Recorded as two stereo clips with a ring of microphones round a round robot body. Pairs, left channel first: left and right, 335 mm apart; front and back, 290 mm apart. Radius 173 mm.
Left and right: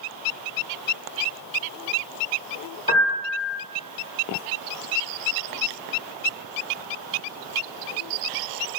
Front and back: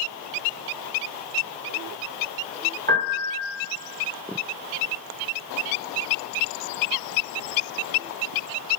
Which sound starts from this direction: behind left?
A piano, at 2.9 s.